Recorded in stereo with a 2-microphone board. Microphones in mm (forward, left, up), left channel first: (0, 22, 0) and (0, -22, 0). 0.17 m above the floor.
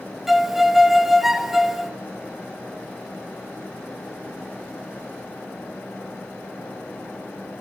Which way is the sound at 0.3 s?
5° right (ahead or behind).